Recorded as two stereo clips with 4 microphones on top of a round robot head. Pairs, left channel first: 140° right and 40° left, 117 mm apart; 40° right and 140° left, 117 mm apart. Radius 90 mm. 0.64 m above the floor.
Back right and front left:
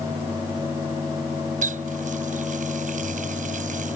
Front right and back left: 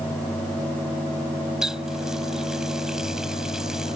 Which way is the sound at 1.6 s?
50° left.